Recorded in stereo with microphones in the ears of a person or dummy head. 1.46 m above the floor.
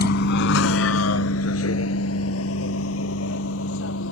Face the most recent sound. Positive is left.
turn(degrees=80)